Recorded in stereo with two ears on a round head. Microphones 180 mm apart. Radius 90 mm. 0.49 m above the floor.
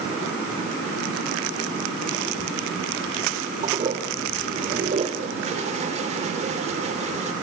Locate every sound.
3.6 s a toilet flushing: 35° right (ahead or behind), 1.6 m